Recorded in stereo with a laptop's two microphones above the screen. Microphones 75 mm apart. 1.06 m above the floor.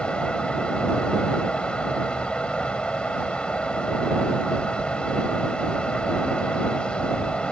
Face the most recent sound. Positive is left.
turn(degrees=15)  # may be behind; listen again after turning